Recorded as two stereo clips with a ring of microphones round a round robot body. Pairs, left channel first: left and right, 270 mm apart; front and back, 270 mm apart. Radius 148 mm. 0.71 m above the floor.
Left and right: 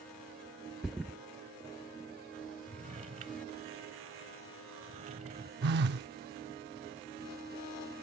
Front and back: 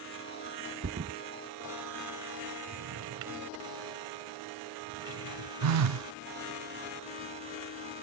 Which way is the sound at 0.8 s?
Straight behind.